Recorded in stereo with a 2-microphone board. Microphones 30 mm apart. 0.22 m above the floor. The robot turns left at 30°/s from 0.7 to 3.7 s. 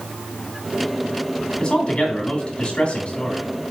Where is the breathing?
No breathing in this recording.